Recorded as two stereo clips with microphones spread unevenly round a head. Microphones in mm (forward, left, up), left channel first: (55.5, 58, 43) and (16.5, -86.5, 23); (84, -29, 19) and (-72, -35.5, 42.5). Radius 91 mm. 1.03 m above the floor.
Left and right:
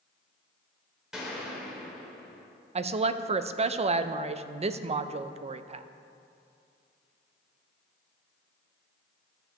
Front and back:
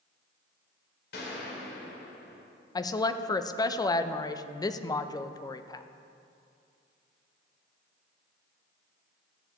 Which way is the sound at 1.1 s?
15° right.